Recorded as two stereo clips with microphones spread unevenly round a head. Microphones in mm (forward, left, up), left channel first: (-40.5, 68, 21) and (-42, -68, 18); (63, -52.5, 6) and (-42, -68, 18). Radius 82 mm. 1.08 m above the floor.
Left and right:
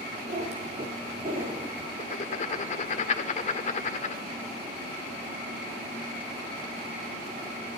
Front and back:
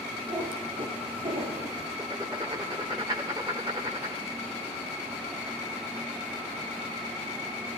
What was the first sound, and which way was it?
A cat meowing, 130° right.